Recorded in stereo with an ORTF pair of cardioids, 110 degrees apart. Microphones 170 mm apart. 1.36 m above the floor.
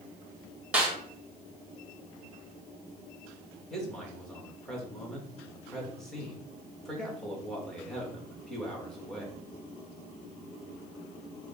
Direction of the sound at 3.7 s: 5° left.